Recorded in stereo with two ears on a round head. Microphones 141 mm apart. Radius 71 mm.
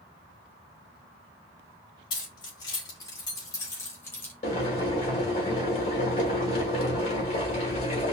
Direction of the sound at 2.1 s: 30° left (ahead or behind).